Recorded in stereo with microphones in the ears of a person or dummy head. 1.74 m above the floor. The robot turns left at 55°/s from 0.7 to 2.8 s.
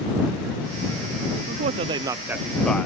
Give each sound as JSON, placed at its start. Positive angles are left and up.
{"t": 1.5, "sound": "a man speaking", "side_deg": -50}